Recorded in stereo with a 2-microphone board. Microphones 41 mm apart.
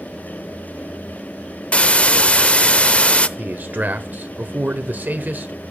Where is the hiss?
30° left (ahead or behind), 0.6 m.